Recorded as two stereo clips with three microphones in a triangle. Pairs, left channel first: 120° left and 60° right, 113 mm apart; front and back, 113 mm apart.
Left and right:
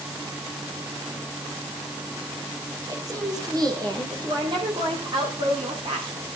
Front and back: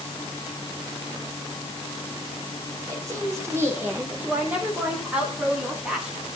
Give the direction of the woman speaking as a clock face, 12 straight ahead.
4 o'clock.